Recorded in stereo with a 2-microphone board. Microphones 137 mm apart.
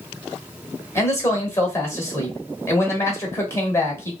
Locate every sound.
0.9 s a man speaking: 20° left (ahead or behind), 1.2 m